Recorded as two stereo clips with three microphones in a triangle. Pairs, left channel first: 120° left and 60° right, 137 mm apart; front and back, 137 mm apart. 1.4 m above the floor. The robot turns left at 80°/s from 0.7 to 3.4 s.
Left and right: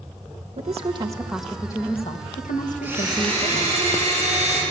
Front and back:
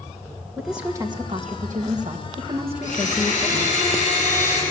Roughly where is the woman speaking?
Right.